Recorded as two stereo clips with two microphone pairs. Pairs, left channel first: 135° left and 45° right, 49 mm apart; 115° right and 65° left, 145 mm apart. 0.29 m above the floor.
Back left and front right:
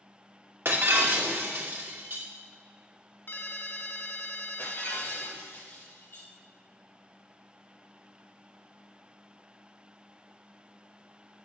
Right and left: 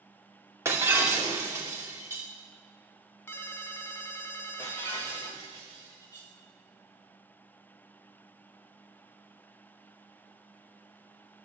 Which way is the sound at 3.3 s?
170° left.